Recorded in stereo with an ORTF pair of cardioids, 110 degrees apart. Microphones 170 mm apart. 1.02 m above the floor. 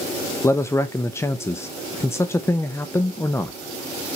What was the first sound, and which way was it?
A man speaking, 15° left.